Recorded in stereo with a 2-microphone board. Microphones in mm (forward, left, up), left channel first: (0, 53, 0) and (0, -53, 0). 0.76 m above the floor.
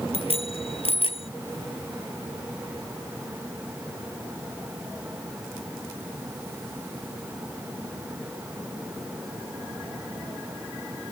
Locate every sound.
0.1 s a bicycle bell: 60° left (ahead or behind)